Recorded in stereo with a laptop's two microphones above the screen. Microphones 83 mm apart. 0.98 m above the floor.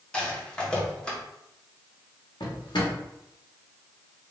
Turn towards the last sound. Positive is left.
turn(degrees=70)  # may be behind; listen again after turning